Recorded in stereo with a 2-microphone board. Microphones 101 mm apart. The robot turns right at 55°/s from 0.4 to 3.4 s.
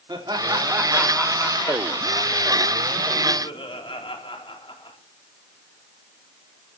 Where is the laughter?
40° right, 3.5 m; by 5.0 s 125° left, 3.5 m.